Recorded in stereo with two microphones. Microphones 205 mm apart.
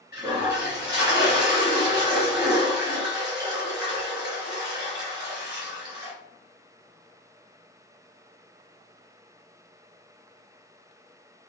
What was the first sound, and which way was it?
A toilet flushing, 20° right (ahead or behind).